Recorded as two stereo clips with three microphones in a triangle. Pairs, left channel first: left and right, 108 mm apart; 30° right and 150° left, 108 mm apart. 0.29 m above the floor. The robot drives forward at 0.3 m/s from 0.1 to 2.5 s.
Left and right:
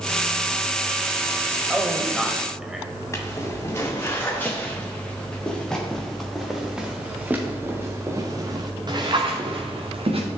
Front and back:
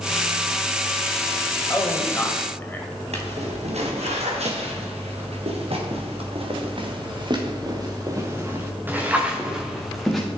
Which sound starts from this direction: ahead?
A man speaking, at 1.7 s.